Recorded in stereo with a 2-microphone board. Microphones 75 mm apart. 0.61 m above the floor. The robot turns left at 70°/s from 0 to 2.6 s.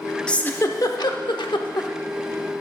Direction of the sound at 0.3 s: 10° left (ahead or behind).